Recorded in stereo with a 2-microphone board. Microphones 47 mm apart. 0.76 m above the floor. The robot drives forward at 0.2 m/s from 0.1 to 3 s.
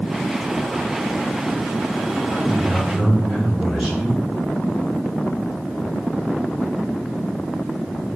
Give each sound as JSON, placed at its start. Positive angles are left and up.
{"t": 2.3, "sound": "a man speaking", "side_deg": -15, "distance_m": 1.2}